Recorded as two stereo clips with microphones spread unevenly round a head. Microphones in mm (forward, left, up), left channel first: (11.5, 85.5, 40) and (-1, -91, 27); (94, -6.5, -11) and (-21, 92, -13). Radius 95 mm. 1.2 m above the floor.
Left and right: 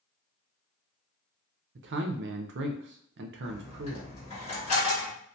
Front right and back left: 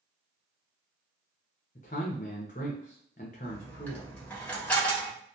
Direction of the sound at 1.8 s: 95° right.